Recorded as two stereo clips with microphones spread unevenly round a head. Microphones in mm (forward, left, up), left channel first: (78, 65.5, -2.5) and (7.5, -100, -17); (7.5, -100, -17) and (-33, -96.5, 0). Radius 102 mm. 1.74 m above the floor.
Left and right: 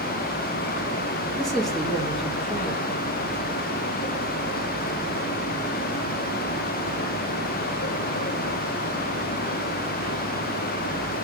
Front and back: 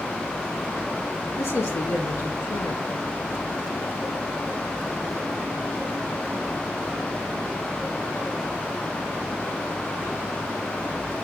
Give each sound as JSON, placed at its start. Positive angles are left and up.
{"t": 1.4, "sound": "a man speaking", "azimuth_deg": -20, "distance_m": 2.0}